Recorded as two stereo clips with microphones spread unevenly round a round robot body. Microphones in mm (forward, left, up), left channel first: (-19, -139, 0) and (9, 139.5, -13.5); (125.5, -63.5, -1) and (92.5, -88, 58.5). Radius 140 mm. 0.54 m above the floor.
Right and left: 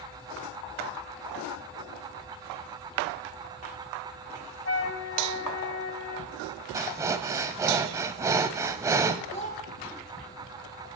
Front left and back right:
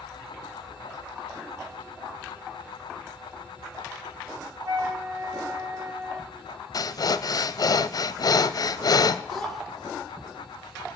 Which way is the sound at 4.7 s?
145° right.